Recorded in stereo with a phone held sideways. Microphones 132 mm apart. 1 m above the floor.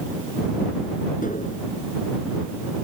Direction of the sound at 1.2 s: 85° left.